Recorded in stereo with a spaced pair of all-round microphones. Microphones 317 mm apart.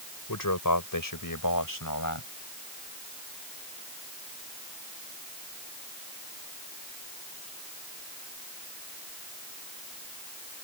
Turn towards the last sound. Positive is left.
turn(degrees=80)